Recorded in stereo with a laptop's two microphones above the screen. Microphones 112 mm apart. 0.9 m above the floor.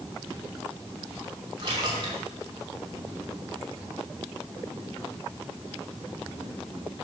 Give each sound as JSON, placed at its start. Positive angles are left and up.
{"t": 1.6, "sound": "a splash", "side_deg": -40, "distance_m": 2.5}